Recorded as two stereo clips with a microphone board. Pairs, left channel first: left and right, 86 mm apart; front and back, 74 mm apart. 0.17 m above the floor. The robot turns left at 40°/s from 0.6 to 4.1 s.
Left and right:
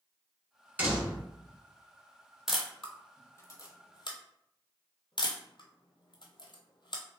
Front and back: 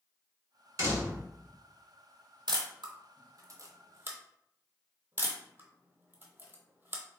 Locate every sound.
0.8 s a door slam: 150° right, 1.3 m; by 1.2 s 170° right, 1.3 m
2.5 s a camera shutter: 175° right, 0.8 m; by 7.0 s 120° left, 0.8 m